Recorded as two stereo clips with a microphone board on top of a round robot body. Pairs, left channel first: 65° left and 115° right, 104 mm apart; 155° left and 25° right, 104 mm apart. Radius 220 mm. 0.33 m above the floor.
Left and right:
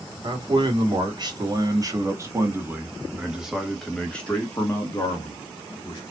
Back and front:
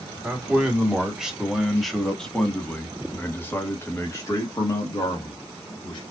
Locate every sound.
0.2 s a man speaking: 100° right, 2 m; by 6.0 s 115° left, 2 m